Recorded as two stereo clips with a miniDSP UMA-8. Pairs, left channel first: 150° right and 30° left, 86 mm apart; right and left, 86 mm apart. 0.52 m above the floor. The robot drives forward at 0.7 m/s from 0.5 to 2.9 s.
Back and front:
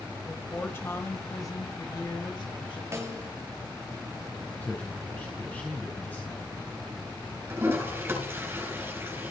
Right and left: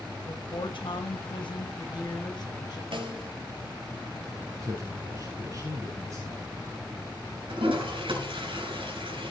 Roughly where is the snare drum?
Left.